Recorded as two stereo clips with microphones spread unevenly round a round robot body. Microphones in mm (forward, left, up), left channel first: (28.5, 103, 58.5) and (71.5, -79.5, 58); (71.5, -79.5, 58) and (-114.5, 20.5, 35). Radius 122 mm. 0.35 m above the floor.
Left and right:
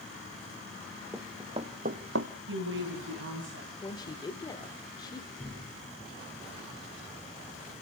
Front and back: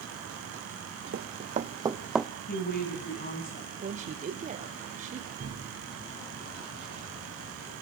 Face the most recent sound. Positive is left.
turn(degrees=-165)